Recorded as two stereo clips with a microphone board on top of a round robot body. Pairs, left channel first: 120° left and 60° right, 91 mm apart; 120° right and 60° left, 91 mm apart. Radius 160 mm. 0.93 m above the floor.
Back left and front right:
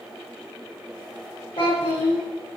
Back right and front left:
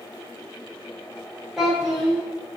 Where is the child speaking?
145° left, 1.2 m.